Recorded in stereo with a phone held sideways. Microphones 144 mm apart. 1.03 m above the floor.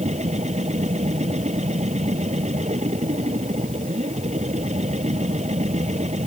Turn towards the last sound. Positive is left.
turn(degrees=-55)  # may be behind; listen again after turning